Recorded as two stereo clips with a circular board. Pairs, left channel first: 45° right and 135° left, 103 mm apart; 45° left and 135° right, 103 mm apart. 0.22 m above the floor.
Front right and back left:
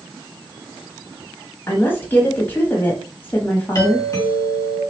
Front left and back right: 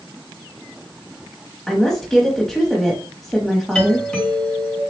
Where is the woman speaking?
35° right, 1.0 m.